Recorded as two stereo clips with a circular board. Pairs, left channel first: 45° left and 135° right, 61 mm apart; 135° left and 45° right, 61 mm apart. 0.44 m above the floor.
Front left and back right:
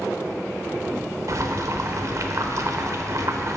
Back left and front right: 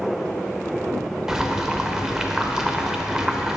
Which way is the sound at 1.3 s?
125° right.